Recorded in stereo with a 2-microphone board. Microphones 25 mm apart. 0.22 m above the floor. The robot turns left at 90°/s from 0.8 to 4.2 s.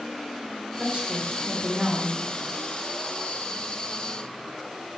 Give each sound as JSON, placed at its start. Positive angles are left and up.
{"t": 0.8, "sound": "a woman speaking", "azimuth_deg": -80, "distance_m": 2.0}